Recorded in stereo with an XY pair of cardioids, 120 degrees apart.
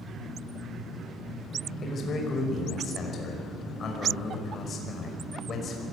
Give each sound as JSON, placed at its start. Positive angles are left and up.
{"t": 1.8, "sound": "a man speaking", "azimuth_deg": 40, "distance_m": 5.5}